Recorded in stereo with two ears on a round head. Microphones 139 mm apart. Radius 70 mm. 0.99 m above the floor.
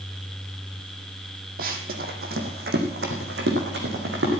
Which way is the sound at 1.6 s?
65° right (ahead or behind).